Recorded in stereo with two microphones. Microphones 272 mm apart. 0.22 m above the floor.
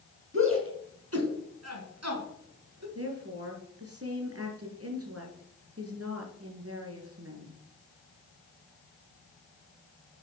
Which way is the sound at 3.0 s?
55° right (ahead or behind).